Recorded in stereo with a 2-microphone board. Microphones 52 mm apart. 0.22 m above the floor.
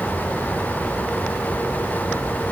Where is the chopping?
I don't hear chopping.